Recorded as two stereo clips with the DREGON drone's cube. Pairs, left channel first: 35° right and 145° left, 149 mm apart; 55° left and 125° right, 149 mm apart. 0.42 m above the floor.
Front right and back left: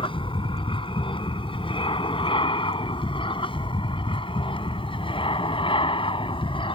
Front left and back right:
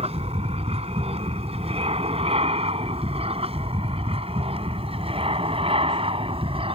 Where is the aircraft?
85° right; by 6.8 s 80° right.